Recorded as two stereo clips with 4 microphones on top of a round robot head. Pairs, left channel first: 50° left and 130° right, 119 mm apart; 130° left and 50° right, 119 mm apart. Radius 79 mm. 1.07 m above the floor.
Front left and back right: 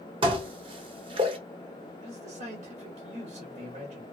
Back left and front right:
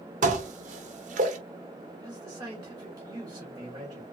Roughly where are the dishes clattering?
Right.